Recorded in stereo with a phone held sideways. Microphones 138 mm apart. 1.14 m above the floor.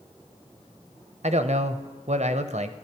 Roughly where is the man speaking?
Right.